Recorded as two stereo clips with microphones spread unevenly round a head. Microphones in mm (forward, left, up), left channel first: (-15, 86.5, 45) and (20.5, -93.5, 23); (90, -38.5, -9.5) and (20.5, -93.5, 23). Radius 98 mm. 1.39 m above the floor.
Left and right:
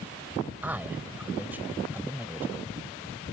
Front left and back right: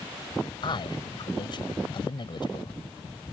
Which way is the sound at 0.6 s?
5° left.